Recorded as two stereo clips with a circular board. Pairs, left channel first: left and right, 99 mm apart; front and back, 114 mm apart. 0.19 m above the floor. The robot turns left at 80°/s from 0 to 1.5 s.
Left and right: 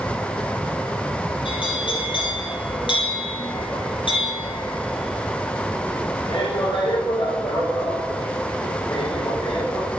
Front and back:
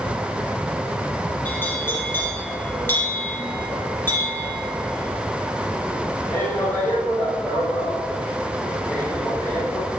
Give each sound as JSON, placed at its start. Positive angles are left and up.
{"t": 1.4, "sound": "a bell", "azimuth_deg": 75, "distance_m": 4.0}